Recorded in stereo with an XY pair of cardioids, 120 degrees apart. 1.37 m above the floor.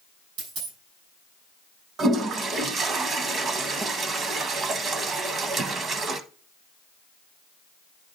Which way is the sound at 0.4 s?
65° right.